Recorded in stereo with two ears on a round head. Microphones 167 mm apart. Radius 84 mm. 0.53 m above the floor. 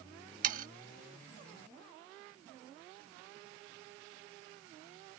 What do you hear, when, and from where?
0.4 s sawing: 45° right (ahead or behind)